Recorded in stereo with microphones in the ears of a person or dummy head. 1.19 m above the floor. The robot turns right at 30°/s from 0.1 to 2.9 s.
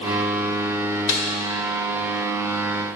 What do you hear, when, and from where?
1.1 s a snare drum: 60° left (ahead or behind), 1.5 m; by 1.2 s 55° left (ahead or behind), 1.5 m